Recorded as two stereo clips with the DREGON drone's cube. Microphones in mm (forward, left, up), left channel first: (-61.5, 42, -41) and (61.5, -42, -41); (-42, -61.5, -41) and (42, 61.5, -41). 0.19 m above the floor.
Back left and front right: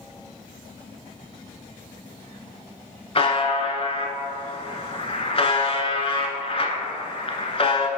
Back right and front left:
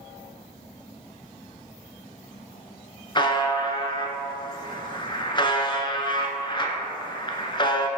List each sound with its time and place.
3.1 s a buzzer: 175° right, 0.6 m